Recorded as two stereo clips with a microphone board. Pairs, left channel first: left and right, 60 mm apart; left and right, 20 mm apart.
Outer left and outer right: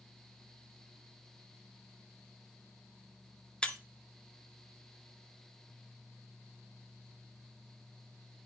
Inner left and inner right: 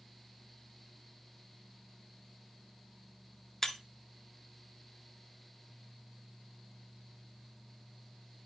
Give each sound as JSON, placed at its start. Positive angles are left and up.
{"t": 3.6, "sound": "breaking glass", "side_deg": 15, "distance_m": 0.7}